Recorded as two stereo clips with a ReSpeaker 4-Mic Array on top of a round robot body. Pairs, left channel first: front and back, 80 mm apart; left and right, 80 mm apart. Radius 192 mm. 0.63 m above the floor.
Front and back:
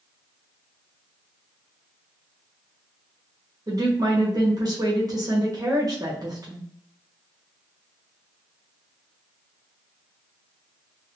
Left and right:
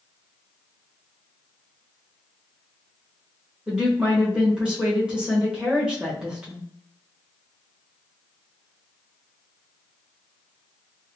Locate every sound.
3.7 s a woman speaking: 165° right, 1.5 m